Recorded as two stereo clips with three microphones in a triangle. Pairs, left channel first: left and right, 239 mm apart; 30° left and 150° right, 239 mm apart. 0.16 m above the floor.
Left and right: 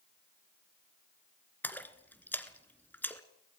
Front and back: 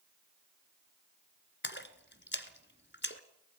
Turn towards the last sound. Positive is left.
turn(degrees=10)